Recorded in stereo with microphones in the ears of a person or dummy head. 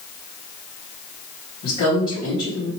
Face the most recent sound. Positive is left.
turn(degrees=40)  # may be behind; listen again after turning